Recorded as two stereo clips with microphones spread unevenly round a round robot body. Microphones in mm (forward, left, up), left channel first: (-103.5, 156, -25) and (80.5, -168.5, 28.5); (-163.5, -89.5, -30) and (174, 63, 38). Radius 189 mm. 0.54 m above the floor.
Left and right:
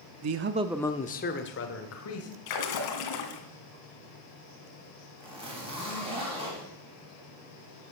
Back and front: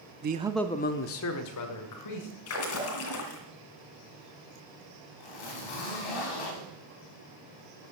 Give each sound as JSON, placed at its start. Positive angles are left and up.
{"t": 0.2, "sound": "a man speaking", "azimuth_deg": -35, "distance_m": 0.7}
{"t": 2.5, "sound": "a splash", "azimuth_deg": 150, "distance_m": 2.0}
{"t": 5.2, "sound": "a zipper", "azimuth_deg": -140, "distance_m": 3.5}